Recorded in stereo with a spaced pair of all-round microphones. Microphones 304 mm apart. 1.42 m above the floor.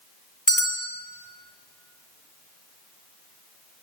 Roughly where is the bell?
Left.